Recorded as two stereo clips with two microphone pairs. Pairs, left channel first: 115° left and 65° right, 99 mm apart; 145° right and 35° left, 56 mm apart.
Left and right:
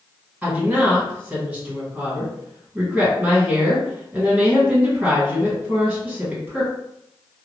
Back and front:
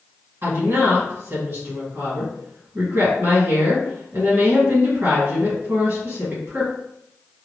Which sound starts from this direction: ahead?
A woman speaking, at 0.4 s.